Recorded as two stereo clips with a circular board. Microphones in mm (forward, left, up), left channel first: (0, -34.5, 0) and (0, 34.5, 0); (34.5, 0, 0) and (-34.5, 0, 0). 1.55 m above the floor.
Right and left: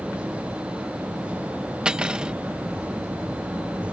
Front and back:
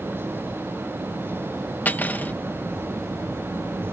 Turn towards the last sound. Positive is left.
turn(degrees=25)